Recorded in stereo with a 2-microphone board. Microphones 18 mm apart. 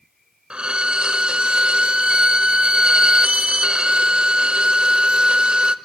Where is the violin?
80° right, 0.8 m.